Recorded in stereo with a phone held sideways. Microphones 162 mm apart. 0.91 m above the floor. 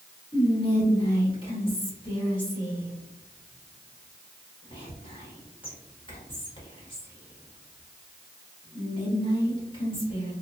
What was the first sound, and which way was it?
Whispering, 30° left (ahead or behind).